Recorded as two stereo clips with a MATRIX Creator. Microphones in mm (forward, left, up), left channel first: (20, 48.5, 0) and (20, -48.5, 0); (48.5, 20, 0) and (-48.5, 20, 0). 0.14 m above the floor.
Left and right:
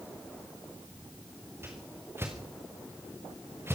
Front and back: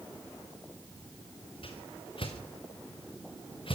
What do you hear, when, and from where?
1.6 s a whoosh: 25° right, 4.5 m